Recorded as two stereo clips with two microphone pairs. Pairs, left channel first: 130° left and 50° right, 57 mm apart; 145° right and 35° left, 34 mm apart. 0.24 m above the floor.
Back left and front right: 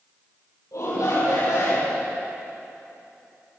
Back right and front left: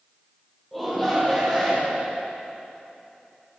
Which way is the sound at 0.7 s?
130° left.